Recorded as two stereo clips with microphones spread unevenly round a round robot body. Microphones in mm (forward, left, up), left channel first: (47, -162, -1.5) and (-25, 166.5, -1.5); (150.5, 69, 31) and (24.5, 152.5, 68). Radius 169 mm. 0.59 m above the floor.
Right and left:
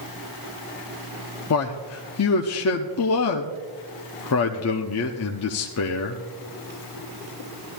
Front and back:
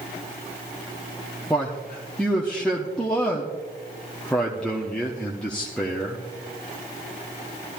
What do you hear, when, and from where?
1.5 s a man speaking: 100° right, 0.7 m